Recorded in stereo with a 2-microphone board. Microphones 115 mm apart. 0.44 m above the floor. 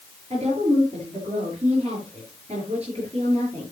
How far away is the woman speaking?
About 8 m.